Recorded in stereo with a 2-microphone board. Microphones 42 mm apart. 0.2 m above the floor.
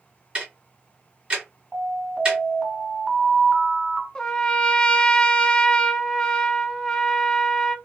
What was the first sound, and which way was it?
Ticking, 25° right (ahead or behind).